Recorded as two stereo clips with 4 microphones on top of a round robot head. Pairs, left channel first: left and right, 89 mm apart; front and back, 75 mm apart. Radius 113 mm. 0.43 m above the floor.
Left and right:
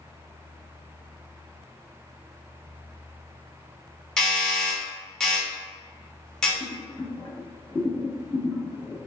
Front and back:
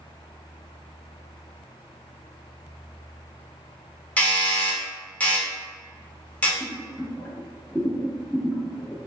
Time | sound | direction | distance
4.2 | a doorbell | 25° left | 1.2 m
6.6 | boiling | 60° left | 1.2 m